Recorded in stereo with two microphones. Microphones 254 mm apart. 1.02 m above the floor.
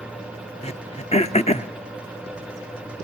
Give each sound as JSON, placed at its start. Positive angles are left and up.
{"t": 0.6, "sound": "throat clearing", "side_deg": 25, "distance_m": 0.8}